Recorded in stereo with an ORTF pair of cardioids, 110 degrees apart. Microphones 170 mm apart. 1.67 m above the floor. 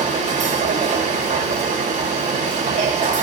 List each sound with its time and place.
0.0 s a machine running: 45° right, 1.7 m